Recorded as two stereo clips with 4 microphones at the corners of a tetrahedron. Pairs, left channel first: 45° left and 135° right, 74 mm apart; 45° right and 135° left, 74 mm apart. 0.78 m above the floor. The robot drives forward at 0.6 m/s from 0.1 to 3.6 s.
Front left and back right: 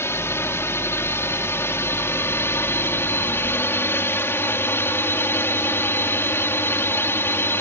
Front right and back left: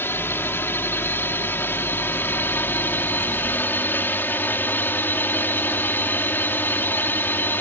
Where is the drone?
5° left.